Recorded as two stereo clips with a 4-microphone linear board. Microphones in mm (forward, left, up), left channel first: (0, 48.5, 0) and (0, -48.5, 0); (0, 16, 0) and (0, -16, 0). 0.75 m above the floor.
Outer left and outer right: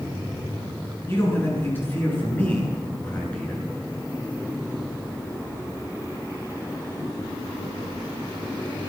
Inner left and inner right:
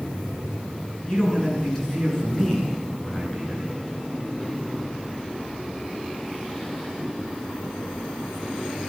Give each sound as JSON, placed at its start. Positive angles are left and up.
{"t": 1.1, "sound": "a man speaking", "side_deg": 25, "distance_m": 8.0}